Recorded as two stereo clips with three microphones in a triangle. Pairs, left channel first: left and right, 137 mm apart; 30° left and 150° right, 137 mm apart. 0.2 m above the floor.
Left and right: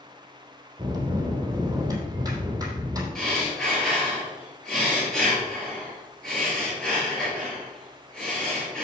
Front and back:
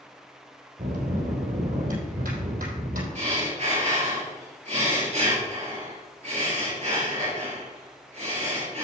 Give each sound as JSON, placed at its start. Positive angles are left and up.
{"t": 0.8, "sound": "a bell", "azimuth_deg": -155, "distance_m": 3.0}
{"t": 3.1, "sound": "breathing", "azimuth_deg": 175, "distance_m": 4.0}